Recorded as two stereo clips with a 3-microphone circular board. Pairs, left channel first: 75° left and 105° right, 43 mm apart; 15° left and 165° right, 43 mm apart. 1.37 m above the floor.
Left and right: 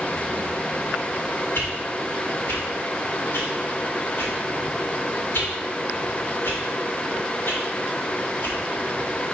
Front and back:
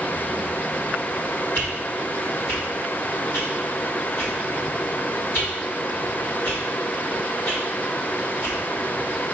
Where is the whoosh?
50° left, 2 m.